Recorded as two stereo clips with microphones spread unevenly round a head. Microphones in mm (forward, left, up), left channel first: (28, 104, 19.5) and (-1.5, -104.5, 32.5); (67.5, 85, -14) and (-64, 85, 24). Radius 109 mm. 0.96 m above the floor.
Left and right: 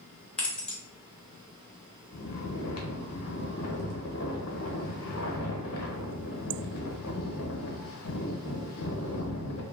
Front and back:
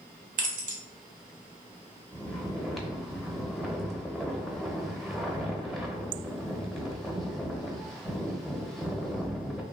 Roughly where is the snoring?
Left.